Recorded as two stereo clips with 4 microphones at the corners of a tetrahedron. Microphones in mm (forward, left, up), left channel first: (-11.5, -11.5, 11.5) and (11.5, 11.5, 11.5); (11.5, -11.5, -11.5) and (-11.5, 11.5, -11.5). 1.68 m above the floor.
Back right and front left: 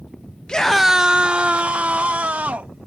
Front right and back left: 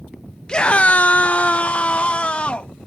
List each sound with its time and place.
0.5 s a scream: 90° right; by 2.7 s 10° left